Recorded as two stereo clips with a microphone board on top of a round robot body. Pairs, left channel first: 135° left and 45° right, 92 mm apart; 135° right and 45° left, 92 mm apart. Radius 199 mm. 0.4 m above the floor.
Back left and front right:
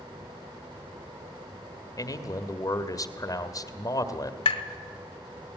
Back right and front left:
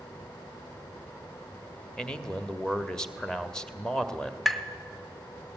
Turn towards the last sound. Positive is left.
turn(degrees=135)